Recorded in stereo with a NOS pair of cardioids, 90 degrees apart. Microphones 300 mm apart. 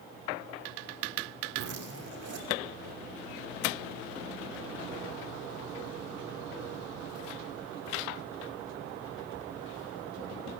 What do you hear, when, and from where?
1.5 s a zipper: 55° right, 5.5 m